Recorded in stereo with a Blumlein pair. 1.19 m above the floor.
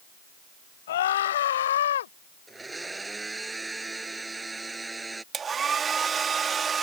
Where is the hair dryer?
20° right.